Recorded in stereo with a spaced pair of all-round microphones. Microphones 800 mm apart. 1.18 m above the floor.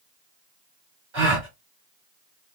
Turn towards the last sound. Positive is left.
turn(degrees=-65)  # may be behind; listen again after turning